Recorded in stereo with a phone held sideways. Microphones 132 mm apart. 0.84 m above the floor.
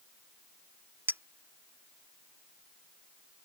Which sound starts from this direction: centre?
A clink, at 1.1 s.